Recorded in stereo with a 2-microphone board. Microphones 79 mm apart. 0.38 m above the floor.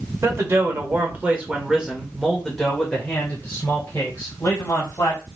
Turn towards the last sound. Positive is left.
turn(degrees=35)  # may be behind; listen again after turning